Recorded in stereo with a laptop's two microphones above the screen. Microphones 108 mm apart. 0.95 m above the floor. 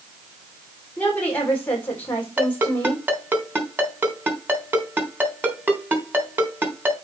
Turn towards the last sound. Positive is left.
turn(degrees=-15)  # may be behind; listen again after turning